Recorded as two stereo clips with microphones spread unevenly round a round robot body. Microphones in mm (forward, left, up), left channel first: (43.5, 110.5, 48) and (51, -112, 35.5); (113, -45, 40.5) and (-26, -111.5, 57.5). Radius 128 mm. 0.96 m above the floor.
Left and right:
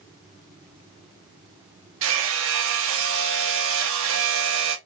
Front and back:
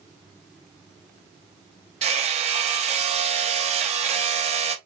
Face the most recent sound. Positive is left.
turn(degrees=-125)